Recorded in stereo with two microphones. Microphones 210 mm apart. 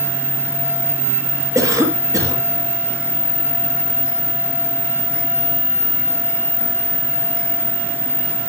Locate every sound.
1.6 s a cough: 15° right (ahead or behind), 5.5 m